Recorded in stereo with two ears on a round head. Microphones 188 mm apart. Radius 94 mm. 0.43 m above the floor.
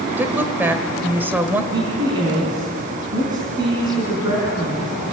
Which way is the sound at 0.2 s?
10° right (ahead or behind).